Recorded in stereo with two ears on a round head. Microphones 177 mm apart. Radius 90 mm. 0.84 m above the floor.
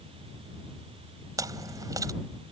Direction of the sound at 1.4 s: 15° right (ahead or behind).